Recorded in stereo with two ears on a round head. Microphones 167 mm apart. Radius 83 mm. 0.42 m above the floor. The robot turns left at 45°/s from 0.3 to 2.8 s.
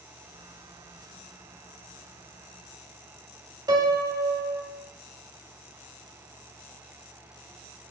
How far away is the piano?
About 0.9 m.